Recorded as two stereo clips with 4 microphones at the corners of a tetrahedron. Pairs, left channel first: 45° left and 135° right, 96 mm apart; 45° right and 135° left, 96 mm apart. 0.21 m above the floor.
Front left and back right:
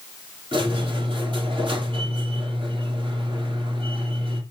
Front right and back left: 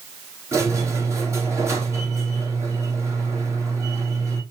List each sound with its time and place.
0.5 s a squeak: 165° right, 2.5 m